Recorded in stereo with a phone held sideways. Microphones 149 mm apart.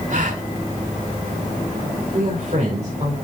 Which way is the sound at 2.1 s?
55° right (ahead or behind).